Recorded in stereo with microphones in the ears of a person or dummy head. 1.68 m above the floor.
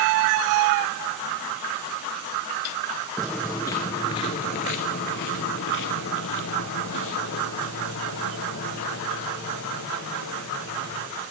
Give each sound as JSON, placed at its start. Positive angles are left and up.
{"t": 3.2, "sound": "footsteps", "side_deg": 0, "distance_m": 1.7}